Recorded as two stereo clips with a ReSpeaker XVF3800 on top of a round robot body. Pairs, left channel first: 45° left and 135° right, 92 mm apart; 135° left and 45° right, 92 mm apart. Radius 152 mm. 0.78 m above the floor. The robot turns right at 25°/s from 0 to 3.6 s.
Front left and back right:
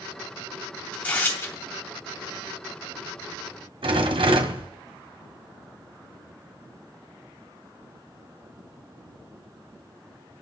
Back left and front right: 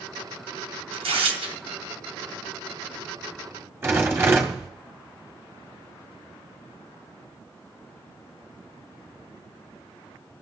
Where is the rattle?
110° right, 1.6 m.